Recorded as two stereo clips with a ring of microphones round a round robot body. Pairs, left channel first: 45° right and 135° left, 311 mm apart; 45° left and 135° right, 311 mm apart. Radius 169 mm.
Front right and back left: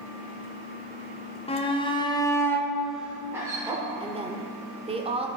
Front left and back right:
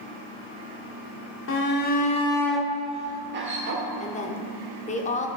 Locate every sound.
1.5 s a shout: 20° left, 1.1 m; by 3.8 s 150° right, 1.1 m
4.0 s a woman speaking: 85° left, 0.9 m